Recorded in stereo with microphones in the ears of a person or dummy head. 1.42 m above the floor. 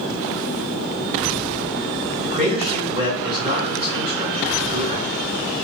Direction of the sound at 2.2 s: 40° right (ahead or behind).